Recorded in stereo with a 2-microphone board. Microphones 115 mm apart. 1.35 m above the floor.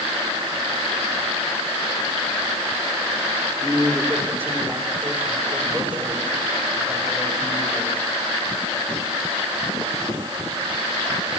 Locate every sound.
3.6 s a man speaking: 25° right (ahead or behind), 4.5 m; by 8.0 s 10° right (ahead or behind), 10 m